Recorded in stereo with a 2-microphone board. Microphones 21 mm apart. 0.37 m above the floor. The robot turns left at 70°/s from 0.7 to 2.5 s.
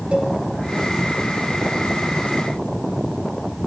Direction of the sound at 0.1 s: 70° right (ahead or behind).